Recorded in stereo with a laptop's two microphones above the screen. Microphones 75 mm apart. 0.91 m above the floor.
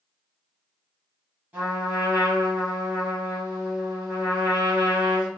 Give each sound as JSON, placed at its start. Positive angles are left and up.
{"t": 1.5, "sound": "a trumpet", "side_deg": -25, "distance_m": 2.0}